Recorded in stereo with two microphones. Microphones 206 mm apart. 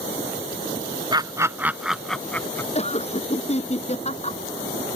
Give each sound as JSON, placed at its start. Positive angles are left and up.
{"t": 1.1, "sound": "laughter", "side_deg": -20}
{"t": 2.8, "sound": "laughter", "side_deg": 30}